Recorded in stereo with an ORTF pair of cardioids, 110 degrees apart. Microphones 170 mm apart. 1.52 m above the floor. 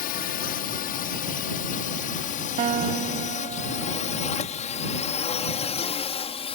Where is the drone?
65° left; by 6.5 s 35° left.